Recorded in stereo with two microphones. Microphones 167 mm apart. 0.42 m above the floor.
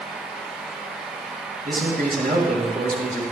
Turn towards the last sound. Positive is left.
turn(degrees=-70)  # may be behind; listen again after turning